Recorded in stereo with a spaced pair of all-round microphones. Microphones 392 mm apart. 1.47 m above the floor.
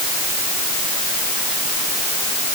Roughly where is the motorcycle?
I don't hear a motorcycle.